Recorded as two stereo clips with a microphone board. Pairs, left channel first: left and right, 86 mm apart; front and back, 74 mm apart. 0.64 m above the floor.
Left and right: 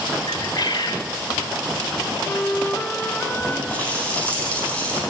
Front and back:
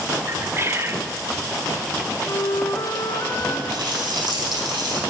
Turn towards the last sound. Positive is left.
turn(degrees=165)